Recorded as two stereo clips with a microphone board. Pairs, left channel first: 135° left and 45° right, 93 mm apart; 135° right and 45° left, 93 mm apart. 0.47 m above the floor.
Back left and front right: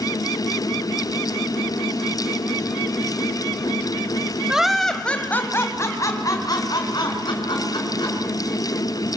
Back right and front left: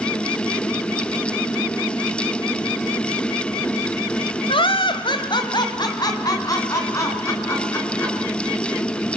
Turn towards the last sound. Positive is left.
turn(degrees=165)